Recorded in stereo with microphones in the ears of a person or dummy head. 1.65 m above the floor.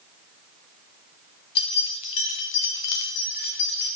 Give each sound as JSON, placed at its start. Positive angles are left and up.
{"t": 1.6, "sound": "keys jangling", "side_deg": 30, "distance_m": 0.9}